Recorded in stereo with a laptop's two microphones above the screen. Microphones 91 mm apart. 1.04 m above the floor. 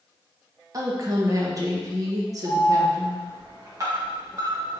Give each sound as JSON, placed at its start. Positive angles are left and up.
{"t": 0.7, "sound": "a woman speaking", "side_deg": -40, "distance_m": 1.1}
{"t": 2.5, "sound": "an alarm", "side_deg": -40, "distance_m": 1.3}